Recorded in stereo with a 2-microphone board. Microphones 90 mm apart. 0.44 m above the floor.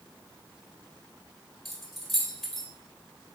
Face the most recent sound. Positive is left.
turn(degrees=0)  # may be behind; listen again after turning